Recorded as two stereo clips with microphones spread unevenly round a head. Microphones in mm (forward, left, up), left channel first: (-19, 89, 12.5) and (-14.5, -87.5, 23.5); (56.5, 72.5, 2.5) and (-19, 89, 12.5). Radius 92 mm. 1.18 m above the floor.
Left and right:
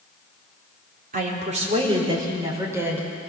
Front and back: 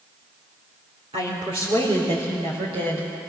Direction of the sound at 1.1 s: 130° right.